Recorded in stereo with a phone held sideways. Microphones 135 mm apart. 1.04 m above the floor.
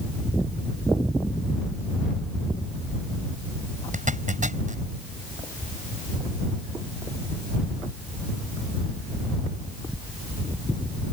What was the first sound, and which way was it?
A zipper, 70° right (ahead or behind).